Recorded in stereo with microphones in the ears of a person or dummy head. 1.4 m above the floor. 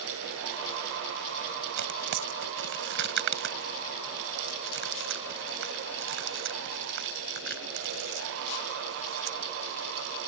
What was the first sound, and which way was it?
Tearing paper, 60° right (ahead or behind).